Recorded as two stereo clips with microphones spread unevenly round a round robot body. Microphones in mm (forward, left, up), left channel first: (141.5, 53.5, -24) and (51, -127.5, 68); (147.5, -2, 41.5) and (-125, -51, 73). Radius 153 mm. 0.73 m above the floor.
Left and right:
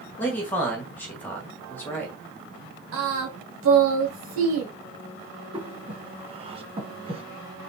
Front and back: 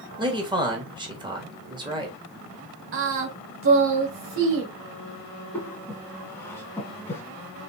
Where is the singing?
130° right, 1.4 m.